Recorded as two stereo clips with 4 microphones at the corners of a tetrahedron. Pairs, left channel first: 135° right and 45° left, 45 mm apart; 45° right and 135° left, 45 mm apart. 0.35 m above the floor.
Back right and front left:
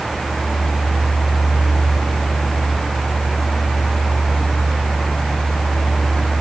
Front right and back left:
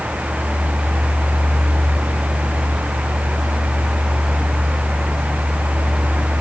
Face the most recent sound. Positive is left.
No sound to turn to.